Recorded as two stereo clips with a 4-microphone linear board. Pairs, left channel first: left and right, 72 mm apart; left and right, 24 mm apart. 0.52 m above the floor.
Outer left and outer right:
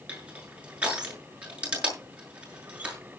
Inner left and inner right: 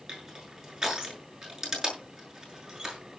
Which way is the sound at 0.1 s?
20° right (ahead or behind).